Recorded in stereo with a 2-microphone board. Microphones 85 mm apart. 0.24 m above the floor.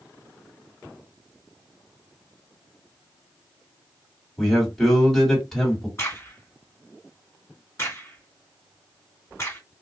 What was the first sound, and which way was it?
A man speaking, centre (ahead or behind).